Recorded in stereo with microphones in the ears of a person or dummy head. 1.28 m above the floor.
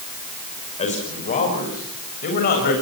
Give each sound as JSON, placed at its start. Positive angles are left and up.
{"t": 0.8, "sound": "a man speaking", "side_deg": 40, "distance_m": 6.0}